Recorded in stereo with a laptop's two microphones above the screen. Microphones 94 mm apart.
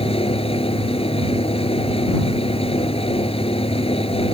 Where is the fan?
85° left.